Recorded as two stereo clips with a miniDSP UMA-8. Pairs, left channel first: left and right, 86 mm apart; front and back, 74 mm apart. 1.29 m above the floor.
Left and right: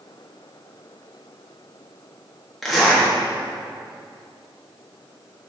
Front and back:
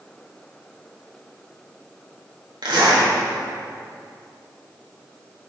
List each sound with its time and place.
2.6 s a zipper: 175° left, 1.9 m